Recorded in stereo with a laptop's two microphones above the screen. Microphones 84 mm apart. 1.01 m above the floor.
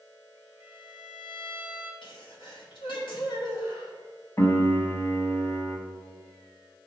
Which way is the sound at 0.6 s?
25° right (ahead or behind).